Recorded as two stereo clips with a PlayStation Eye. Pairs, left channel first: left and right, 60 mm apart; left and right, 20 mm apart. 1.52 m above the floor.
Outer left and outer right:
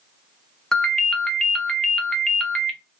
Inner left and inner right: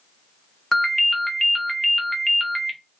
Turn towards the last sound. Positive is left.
turn(degrees=10)  # may be behind; listen again after turning